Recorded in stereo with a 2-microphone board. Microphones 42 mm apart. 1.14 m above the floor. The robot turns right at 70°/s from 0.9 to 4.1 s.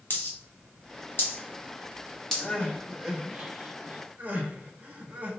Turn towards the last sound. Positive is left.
turn(degrees=-40)  # may be behind; listen again after turning